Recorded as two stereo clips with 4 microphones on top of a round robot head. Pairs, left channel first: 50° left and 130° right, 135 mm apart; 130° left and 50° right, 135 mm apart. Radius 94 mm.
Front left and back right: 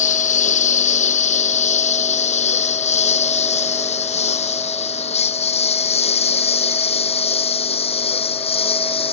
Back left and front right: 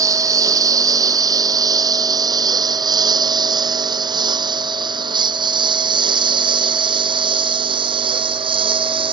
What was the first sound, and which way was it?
A lawn mower, 15° left.